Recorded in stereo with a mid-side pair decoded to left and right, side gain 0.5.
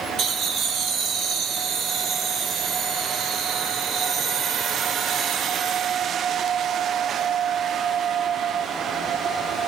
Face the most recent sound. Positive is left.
turn(degrees=-70)